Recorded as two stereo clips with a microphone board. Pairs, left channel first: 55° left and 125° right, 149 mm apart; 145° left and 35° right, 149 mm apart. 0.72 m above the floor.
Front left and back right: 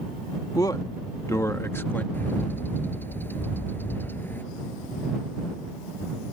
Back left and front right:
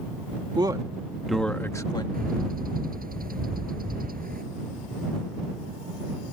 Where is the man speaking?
5° left; by 2.0 s 125° left.